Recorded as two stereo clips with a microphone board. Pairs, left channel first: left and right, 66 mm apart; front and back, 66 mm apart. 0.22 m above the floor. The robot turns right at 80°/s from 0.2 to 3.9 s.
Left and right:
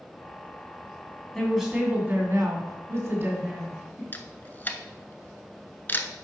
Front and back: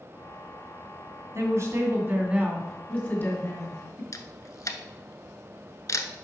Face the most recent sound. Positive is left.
turn(degrees=30)